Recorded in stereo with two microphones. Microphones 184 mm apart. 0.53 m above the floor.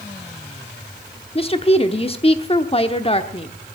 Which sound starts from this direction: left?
A woman speaking, at 1.4 s.